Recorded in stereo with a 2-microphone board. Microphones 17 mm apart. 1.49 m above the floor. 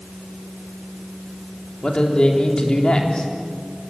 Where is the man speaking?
55° left (ahead or behind), 3.5 m.